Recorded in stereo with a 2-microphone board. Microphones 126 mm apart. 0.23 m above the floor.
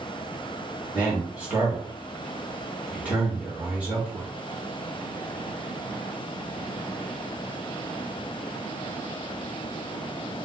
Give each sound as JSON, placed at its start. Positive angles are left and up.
{"t": 0.9, "sound": "a man speaking", "side_deg": -10, "distance_m": 2.0}